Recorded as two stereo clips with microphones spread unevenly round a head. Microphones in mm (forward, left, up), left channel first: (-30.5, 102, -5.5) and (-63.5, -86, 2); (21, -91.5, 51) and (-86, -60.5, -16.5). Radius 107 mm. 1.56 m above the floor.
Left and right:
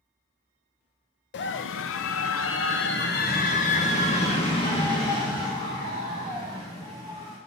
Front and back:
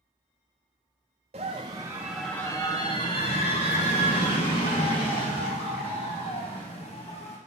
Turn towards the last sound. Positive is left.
turn(degrees=0)